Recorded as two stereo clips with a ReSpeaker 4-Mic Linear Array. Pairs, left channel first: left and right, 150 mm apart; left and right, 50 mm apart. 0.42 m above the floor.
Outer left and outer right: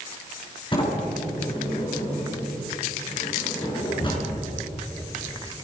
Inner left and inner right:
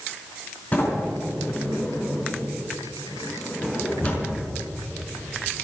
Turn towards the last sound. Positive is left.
turn(degrees=35)  # may be behind; listen again after turning